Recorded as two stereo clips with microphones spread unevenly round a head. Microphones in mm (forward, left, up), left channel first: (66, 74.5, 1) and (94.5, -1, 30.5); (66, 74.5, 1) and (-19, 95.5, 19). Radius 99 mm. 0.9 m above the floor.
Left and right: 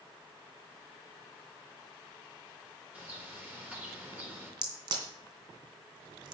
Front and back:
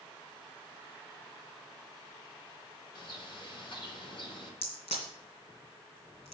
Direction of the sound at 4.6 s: 65° right.